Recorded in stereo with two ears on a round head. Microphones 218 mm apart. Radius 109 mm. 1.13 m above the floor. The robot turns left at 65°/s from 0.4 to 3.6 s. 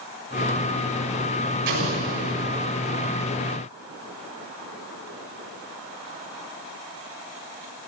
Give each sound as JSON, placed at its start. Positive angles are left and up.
{"t": 1.7, "sound": "an explosion", "azimuth_deg": -50, "distance_m": 6.0}